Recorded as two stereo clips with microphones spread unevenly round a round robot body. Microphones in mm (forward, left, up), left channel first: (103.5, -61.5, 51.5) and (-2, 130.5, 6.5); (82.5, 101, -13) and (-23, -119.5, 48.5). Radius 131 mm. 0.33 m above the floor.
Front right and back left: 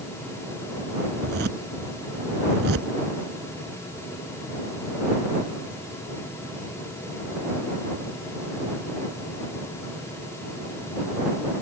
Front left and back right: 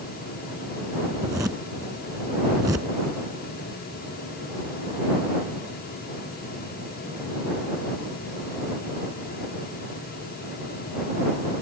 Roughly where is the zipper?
Behind.